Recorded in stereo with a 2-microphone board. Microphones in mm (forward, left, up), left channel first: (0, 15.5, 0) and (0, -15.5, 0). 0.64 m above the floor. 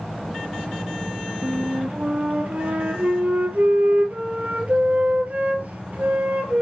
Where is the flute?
60° right (ahead or behind), 2.5 m.